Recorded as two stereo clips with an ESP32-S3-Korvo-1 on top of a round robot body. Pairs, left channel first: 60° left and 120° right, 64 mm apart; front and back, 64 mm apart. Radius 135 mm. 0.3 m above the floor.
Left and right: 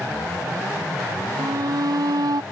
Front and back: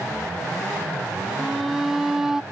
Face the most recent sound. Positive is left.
turn(degrees=-95)